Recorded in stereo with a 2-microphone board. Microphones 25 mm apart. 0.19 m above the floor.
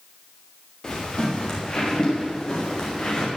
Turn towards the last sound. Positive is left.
turn(degrees=35)  # may be behind; listen again after turning